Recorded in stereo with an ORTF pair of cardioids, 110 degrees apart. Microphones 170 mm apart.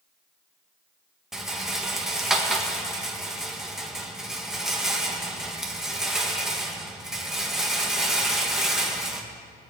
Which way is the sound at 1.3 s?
5° right.